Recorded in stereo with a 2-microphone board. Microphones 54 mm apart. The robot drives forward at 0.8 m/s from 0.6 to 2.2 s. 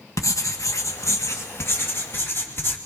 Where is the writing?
75° left (ahead or behind), 1.6 m; by 2.8 s 45° left (ahead or behind), 2 m.